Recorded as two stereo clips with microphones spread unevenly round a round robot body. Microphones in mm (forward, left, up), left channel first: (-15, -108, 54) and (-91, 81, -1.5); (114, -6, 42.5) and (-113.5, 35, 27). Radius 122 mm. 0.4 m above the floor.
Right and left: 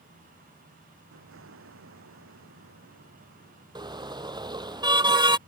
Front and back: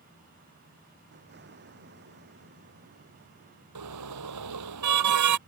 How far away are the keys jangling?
No keys jangling in this recording.